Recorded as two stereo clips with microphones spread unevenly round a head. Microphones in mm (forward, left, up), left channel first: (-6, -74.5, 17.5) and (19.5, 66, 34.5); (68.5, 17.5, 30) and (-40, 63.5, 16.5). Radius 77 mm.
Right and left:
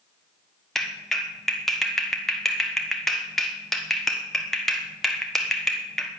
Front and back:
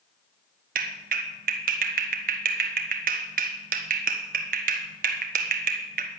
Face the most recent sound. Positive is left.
turn(degrees=170)